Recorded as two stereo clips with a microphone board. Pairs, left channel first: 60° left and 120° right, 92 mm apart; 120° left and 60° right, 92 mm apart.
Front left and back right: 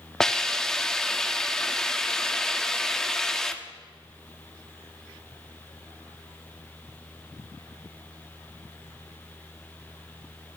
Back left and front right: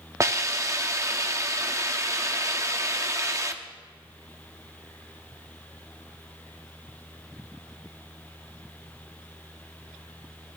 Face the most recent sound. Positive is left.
turn(degrees=-20)